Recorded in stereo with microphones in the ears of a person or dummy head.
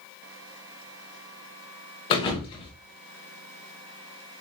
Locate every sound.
2.1 s a thud: 30° left (ahead or behind), 1.0 m